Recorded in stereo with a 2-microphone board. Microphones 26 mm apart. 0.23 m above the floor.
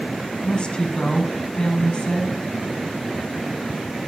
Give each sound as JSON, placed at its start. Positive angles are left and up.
{"t": 0.4, "sound": "a woman speaking", "side_deg": 40, "distance_m": 1.4}